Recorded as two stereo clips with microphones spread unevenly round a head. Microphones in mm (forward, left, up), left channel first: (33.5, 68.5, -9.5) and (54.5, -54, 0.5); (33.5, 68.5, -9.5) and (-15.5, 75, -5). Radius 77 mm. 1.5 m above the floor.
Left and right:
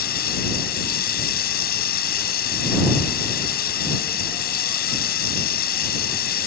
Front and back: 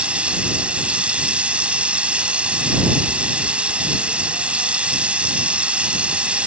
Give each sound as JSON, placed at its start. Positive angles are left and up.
{"t": 0.0, "sound": "running water", "azimuth_deg": 105}